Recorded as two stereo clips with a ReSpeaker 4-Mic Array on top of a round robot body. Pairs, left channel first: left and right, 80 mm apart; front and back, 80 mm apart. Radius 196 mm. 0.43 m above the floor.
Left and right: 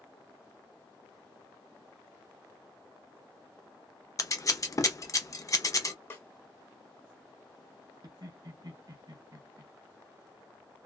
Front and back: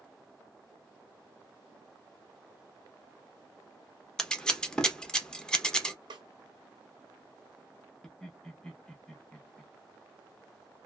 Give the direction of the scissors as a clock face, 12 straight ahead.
9 o'clock.